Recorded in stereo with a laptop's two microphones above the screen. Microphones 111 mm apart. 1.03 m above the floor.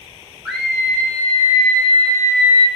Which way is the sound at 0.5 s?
15° right (ahead or behind).